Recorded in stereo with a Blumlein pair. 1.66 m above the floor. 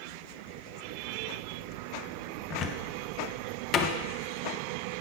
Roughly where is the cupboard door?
Ahead left.